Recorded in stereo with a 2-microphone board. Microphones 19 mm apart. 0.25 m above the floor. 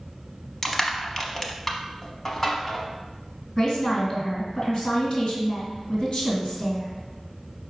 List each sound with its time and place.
0.6 s crushing: 25° left (ahead or behind), 0.6 m
3.6 s a woman speaking: 45° left (ahead or behind), 1.8 m